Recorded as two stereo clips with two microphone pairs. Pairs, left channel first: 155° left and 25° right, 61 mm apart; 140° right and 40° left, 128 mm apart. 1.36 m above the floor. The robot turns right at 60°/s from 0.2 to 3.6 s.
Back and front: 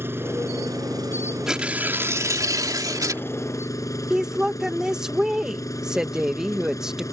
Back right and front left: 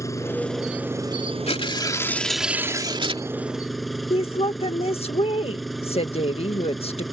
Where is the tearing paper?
105° right; by 3.2 s straight ahead.